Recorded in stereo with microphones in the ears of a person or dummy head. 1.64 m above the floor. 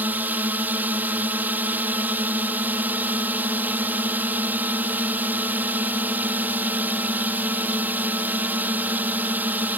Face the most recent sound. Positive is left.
turn(degrees=-10)  # may be behind; listen again after turning